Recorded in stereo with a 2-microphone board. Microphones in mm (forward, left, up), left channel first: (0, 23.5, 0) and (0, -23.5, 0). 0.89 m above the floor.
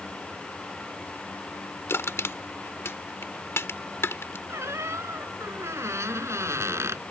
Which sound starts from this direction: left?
Crushing, at 1.9 s.